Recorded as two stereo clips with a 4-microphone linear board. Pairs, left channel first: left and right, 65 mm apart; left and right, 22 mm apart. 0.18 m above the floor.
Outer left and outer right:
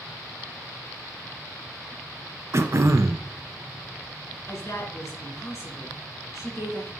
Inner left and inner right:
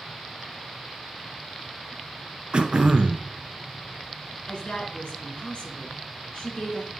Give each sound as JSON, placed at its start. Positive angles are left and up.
{"t": 2.5, "sound": "throat clearing", "side_deg": -45, "distance_m": 0.6}
{"t": 4.5, "sound": "a woman speaking", "side_deg": 45, "distance_m": 2.5}